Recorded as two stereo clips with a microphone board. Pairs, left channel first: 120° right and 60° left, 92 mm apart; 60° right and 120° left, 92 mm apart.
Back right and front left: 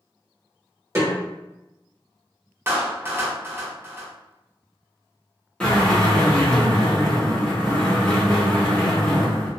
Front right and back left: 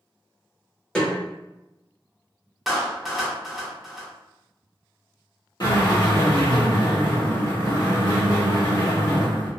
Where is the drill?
45° right, 1.4 m.